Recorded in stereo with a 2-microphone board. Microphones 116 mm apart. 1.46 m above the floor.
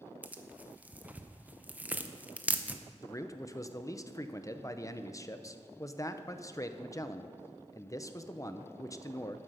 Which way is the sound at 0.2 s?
10° right (ahead or behind).